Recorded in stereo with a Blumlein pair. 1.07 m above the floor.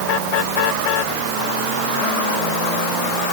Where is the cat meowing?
I don't hear a cat meowing.